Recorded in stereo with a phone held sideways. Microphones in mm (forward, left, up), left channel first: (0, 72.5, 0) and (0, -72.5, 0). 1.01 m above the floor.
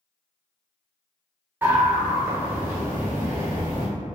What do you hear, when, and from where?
1.6 s a scream: 15° right (ahead or behind), 1.1 m